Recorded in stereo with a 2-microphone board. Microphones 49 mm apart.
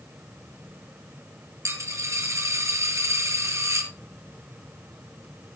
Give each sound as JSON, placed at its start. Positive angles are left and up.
{"t": 1.6, "sound": "a dropped coin", "side_deg": -80, "distance_m": 2.5}